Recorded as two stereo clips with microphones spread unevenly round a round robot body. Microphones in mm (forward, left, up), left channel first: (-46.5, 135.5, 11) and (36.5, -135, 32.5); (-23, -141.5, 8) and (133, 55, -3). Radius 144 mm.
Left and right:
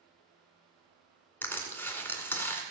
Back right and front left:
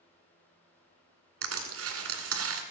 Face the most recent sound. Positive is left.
turn(degrees=25)